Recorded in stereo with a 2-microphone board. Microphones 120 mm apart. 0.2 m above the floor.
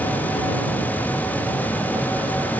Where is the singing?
No singing in this recording.